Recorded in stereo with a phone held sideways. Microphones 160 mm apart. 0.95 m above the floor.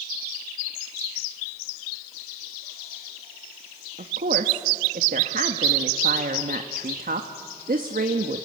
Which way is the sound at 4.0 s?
65° right (ahead or behind).